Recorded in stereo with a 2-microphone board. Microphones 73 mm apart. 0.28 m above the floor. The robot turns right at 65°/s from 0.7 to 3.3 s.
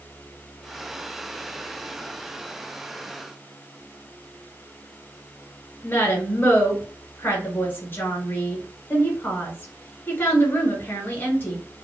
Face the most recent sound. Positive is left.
turn(degrees=25)  # may be behind; listen again after turning